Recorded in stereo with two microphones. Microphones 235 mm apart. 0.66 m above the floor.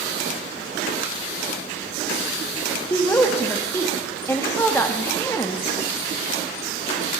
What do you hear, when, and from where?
2.9 s a woman speaking: 10° left (ahead or behind), 0.6 m